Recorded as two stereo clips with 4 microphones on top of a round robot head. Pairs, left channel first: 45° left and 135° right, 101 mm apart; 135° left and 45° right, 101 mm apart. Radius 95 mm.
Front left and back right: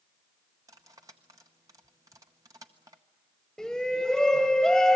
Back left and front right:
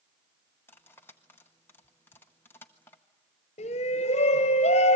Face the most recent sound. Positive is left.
turn(degrees=130)